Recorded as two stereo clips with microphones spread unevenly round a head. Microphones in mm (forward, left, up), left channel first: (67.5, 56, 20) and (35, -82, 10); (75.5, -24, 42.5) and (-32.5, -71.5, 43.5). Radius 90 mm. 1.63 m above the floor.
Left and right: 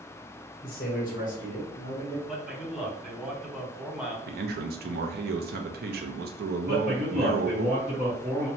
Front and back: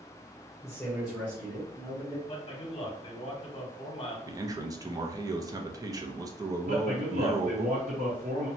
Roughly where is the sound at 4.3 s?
Right.